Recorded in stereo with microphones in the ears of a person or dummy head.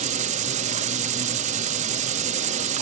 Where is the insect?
40° right (ahead or behind).